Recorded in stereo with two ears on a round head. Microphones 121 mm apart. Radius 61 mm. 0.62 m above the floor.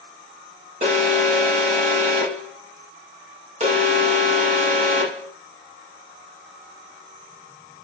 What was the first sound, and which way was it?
An alarm, 55° right (ahead or behind).